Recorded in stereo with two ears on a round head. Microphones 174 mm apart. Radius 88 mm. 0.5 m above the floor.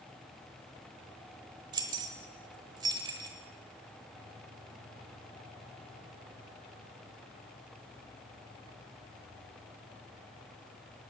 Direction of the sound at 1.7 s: 20° right (ahead or behind).